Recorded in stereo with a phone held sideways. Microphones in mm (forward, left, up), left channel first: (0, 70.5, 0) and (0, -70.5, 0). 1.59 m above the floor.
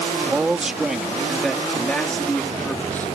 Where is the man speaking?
10° right (ahead or behind); by 3.1 s 15° left (ahead or behind).